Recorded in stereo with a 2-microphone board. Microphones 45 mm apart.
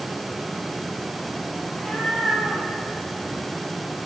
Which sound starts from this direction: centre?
A cat meowing, at 1.6 s.